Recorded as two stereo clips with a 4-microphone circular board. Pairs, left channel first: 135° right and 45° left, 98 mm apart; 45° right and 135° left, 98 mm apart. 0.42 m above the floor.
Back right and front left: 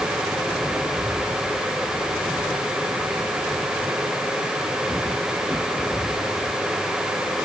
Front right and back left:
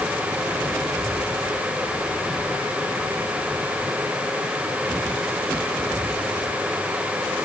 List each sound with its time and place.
Only background noise.